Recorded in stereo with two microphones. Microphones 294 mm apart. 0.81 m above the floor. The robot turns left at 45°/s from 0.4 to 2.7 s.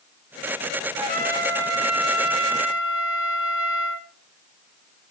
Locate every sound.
1.0 s a trumpet: 20° right, 1.9 m; by 4.1 s 100° right, 1.9 m